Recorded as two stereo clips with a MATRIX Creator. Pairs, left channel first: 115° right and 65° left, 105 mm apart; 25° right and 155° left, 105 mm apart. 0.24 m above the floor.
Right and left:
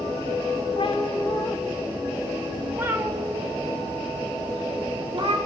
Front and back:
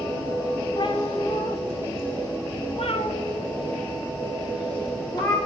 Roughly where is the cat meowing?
Right.